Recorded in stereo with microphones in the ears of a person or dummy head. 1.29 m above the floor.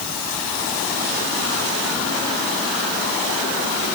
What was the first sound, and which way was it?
Only background noise.